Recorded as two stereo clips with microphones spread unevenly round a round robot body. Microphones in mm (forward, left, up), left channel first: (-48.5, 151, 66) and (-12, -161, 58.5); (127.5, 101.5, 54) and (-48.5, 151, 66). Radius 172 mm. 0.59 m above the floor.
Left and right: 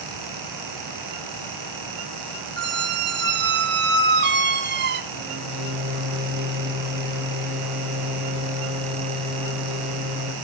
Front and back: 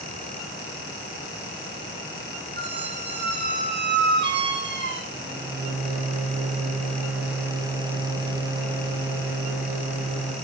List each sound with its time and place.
2.6 s a squeak: 140° right, 0.8 m
5.1 s a microwave: 110° right, 3.5 m